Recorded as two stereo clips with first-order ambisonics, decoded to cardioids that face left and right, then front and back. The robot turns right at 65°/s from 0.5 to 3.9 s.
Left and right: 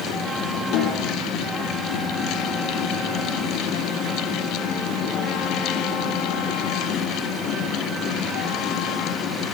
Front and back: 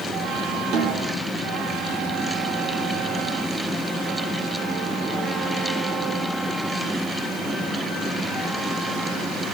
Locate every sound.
0.7 s a snare drum: 135° left, 6 m; by 1.1 s 160° left, 6 m